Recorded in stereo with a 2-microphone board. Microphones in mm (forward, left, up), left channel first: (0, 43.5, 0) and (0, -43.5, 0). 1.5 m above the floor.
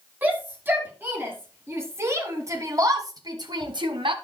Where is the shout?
20° right (ahead or behind), 5.5 m; by 4.2 s 70° right (ahead or behind), 2 m.